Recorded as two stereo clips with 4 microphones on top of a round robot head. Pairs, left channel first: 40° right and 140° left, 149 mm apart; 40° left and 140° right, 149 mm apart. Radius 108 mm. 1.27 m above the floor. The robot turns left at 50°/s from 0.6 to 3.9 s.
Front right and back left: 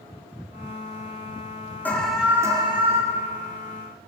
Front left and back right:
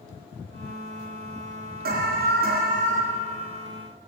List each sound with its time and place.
1.9 s an alarm: 120° right, 5 m; by 3.0 s straight behind, 5 m